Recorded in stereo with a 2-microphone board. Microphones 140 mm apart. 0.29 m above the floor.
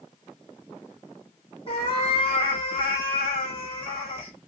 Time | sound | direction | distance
1.7 | a cat meowing | 40° left (ahead or behind) | 2.5 m